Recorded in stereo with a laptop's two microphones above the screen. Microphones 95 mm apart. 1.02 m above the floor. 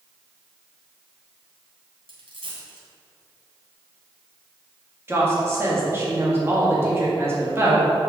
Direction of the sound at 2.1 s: 70° right (ahead or behind).